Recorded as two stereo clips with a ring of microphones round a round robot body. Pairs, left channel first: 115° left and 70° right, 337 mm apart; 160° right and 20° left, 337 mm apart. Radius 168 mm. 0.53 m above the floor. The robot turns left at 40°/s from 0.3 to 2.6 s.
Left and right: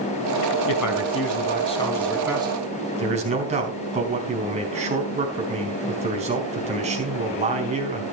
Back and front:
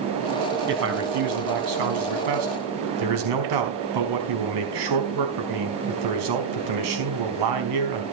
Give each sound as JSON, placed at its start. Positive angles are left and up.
{"t": 0.7, "sound": "a man speaking", "azimuth_deg": 80, "distance_m": 4.5}